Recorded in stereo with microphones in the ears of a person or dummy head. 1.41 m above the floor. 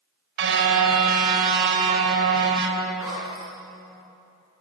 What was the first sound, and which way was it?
A car horn, 75° right (ahead or behind).